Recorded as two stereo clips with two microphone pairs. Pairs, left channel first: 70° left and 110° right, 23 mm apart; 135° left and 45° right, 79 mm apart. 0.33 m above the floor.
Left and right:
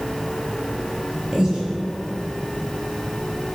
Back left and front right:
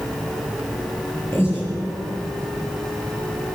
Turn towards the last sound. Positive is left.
turn(degrees=-170)